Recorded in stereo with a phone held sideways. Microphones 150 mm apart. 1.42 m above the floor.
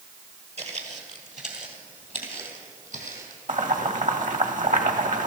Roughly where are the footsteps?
Right.